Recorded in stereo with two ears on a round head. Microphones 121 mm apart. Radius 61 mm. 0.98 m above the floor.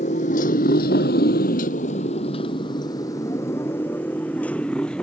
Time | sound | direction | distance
0.0 | a motorcycle | 55° left (ahead or behind) | ?